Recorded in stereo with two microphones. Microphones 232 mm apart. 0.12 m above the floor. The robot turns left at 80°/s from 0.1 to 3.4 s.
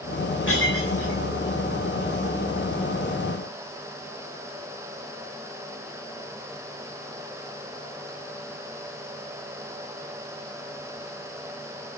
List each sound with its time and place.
0.5 s breaking glass: 55° left (ahead or behind), 7.5 m; by 1.2 s 65° left (ahead or behind), 7.5 m